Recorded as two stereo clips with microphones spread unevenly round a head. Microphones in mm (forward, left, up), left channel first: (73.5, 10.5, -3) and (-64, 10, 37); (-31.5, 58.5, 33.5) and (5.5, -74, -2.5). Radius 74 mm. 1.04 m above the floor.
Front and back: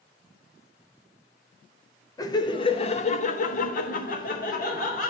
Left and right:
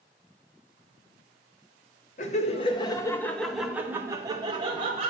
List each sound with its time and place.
2.2 s laughter: 60° left, 1.2 m; by 5.1 s 25° right, 1.7 m